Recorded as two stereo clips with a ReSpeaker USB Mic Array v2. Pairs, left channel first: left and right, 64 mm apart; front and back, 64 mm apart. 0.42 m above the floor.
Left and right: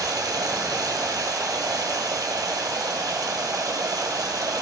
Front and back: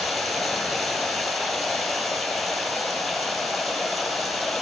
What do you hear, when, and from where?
0.0 s running water: 90° right, 1.8 m